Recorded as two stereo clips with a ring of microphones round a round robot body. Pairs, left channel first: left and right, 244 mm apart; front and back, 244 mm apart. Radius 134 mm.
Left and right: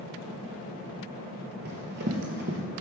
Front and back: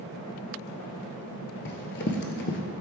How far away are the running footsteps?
About 0.5 m.